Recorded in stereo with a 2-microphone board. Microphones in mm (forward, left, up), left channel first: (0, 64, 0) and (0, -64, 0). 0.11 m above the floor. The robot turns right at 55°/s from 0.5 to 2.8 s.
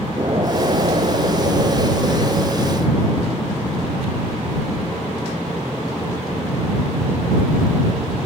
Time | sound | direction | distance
0.2 | an explosion | 130° right | ?